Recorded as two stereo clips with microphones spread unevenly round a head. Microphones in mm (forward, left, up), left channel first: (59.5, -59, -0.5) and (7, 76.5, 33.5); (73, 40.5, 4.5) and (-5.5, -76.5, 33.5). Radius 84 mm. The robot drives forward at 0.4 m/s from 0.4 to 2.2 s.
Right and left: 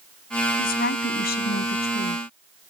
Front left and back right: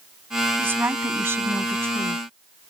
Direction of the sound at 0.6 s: 50° right.